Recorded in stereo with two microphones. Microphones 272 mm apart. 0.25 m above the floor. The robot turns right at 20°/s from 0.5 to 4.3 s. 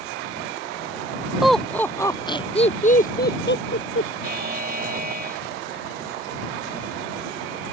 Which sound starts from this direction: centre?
Laughter, at 1.4 s.